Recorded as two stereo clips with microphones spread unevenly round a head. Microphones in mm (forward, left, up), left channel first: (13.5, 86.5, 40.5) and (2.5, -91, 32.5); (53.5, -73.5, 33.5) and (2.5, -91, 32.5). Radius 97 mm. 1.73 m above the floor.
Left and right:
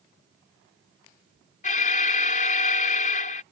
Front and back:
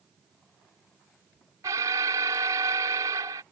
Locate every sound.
1.6 s an alarm: 140° left